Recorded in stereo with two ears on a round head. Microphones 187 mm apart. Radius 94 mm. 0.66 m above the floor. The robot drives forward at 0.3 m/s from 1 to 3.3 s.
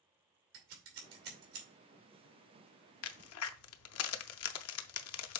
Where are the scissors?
70° right (ahead or behind), 2.5 m.